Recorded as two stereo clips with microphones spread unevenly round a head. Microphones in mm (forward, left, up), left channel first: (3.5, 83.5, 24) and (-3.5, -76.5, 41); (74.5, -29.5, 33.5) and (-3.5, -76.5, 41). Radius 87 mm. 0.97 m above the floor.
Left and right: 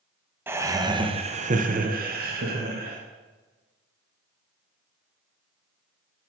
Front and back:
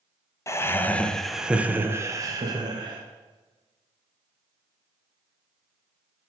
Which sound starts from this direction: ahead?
Laughter, at 0.5 s.